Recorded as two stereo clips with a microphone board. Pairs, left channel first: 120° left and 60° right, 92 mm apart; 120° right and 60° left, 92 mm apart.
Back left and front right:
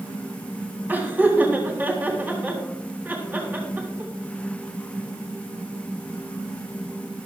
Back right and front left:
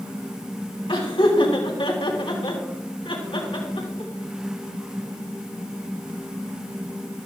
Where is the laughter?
130° right, 3.5 m.